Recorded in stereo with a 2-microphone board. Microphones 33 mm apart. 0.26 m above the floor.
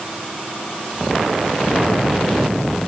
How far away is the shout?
No shout in this recording.